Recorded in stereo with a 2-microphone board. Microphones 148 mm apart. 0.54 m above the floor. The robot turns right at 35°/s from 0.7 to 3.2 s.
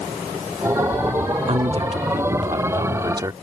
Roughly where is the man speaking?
Right.